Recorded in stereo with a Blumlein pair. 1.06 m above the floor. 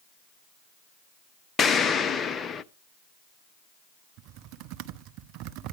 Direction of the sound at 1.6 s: 20° left.